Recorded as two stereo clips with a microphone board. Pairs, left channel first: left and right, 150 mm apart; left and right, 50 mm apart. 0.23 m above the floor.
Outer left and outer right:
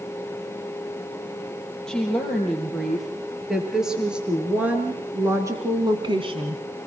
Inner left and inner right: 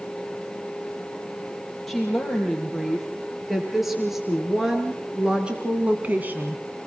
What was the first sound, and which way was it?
A woman speaking, 5° left (ahead or behind).